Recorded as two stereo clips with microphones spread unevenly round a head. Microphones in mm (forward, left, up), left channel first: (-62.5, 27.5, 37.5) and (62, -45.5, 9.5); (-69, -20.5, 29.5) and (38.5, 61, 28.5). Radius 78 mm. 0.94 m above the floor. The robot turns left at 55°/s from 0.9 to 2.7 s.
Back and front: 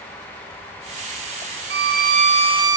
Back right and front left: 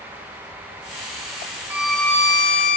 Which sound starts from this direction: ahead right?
A violin, at 1.7 s.